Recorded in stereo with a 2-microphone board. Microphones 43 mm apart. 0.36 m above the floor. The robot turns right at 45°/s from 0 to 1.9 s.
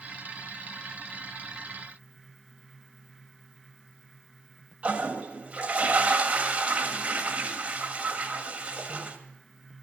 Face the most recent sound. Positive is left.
turn(degrees=-30)  # may be behind; listen again after turning